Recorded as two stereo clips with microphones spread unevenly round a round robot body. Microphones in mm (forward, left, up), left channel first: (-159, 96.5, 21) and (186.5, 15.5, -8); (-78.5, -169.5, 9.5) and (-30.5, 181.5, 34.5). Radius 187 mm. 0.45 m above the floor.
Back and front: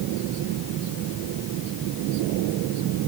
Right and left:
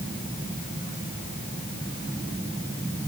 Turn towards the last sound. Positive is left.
No sound to turn to.